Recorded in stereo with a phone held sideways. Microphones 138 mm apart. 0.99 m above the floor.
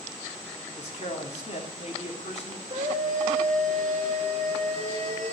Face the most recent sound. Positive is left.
turn(degrees=-55)  # may be behind; listen again after turning